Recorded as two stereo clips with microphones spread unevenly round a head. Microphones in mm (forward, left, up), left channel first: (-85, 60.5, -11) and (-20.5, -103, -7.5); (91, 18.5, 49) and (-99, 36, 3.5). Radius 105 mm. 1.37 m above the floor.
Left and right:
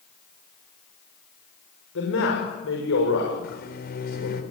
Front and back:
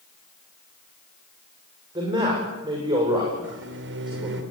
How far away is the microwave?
About 3.5 m.